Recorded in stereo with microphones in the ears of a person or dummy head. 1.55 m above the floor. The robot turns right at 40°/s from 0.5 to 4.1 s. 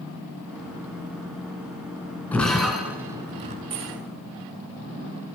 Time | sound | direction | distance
2.3 | breaking glass | 10° left (ahead or behind) | 3.5 m
3.7 | keys jangling | 20° right (ahead or behind) | 5 m